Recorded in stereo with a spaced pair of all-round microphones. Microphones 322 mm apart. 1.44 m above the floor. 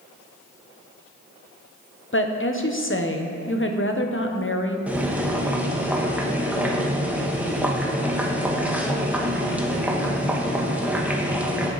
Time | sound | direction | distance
2.1 | a woman speaking | 40° left (ahead or behind) | 0.9 m
4.9 | boiling | 5° right (ahead or behind) | 1.1 m